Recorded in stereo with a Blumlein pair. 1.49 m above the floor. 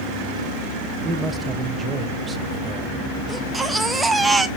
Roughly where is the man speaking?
Ahead.